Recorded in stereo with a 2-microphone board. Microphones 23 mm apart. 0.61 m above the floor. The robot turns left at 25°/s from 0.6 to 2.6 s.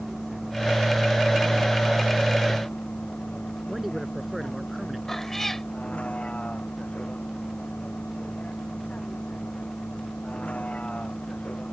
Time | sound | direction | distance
0.0 | a vehicle | 5° left (ahead or behind) | ?
3.7 | a man speaking | 10° right (ahead or behind) | ?
5.1 | a cat meowing | 15° left (ahead or behind) | ?